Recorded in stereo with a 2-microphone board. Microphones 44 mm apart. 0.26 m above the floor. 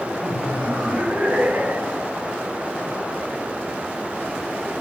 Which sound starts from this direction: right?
Laughter, at 0.2 s.